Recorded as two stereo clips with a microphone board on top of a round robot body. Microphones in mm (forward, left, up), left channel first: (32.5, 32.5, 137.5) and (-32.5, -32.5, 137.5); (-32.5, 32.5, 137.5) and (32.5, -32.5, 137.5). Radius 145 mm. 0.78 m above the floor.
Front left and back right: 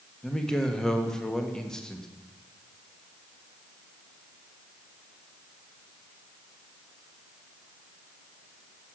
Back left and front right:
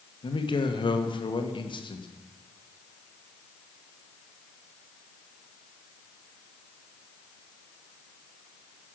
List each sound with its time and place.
0.2 s a man speaking: 125° left, 1.6 m